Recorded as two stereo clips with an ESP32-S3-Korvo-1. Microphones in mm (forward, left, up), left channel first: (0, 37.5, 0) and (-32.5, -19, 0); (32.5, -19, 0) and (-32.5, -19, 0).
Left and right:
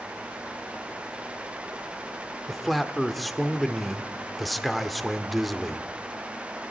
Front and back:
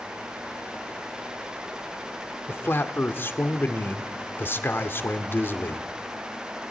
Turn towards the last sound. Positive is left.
turn(degrees=-30)